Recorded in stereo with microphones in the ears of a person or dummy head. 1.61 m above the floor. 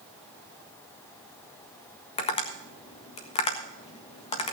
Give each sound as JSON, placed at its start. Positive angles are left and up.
{"t": 2.2, "sound": "tapping", "side_deg": 30, "distance_m": 1.5}